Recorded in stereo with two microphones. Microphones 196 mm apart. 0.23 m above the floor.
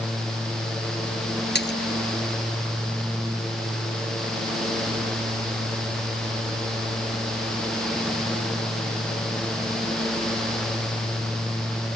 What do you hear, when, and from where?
1.6 s a splash: 60° left (ahead or behind)